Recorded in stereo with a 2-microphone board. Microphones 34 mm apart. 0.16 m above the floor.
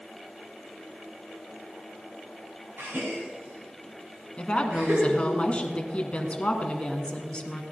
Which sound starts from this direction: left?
A woman speaking, at 4.4 s.